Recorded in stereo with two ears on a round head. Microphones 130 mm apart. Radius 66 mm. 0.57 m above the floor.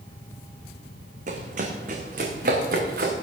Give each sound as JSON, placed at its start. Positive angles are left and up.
{"t": 1.3, "sound": "running footsteps", "side_deg": -55, "distance_m": 2.5}